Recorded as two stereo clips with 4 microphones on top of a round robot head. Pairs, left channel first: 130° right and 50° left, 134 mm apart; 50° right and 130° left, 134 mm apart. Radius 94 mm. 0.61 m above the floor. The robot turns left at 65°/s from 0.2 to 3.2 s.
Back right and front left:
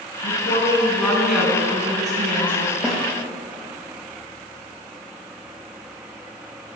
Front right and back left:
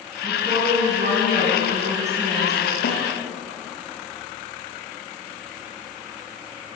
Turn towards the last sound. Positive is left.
turn(degrees=-60)